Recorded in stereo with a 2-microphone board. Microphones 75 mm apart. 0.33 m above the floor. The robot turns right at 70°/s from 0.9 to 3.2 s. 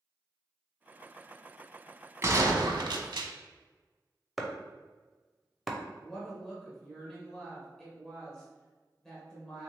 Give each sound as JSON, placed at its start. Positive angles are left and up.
{"t": 2.2, "sound": "a gunshot", "azimuth_deg": -145, "distance_m": 0.5}
{"t": 4.4, "sound": "chopping", "side_deg": 0, "distance_m": 0.5}
{"t": 6.0, "sound": "a woman speaking", "side_deg": 5, "distance_m": 1.3}